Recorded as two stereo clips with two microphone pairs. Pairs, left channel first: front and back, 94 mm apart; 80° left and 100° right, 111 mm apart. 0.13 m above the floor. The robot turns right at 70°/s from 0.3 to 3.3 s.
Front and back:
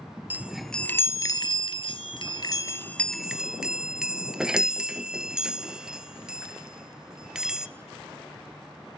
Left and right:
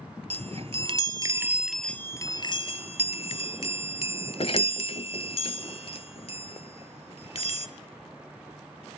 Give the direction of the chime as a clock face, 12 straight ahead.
4 o'clock.